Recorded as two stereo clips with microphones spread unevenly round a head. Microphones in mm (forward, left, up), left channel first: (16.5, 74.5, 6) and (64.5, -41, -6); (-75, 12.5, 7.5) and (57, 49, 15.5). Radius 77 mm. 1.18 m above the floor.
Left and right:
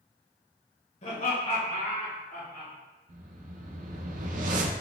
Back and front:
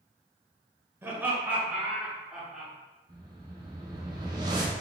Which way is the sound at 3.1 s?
50° right.